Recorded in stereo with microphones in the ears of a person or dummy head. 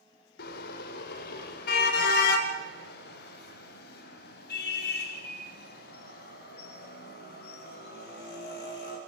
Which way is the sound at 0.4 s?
60° left (ahead or behind).